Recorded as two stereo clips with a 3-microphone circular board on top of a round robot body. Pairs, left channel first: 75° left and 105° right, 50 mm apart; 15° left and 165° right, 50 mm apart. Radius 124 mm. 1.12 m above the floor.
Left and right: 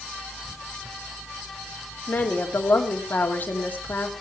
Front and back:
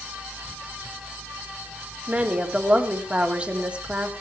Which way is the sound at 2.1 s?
130° left.